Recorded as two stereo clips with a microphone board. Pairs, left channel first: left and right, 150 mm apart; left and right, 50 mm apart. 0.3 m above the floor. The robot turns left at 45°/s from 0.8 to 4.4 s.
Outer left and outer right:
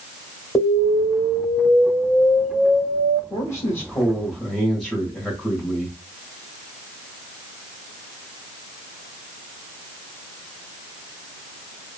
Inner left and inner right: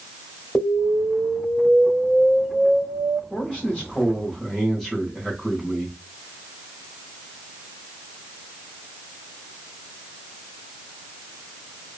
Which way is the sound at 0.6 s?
20° left (ahead or behind).